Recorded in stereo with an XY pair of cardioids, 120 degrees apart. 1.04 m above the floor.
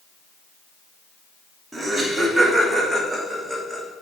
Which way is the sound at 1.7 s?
10° right.